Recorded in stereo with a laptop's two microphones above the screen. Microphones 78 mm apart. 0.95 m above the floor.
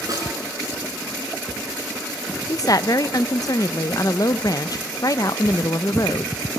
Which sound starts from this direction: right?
A snare drum, at 0.1 s.